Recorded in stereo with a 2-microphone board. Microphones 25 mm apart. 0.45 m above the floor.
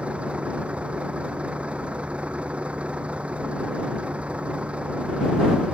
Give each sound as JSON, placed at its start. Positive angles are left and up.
{"t": 0.0, "sound": "a vehicle", "side_deg": -55}